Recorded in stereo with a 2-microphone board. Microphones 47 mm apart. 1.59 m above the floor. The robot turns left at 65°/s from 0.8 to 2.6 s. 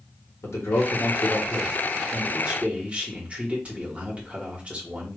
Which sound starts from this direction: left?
A man speaking, at 0.4 s.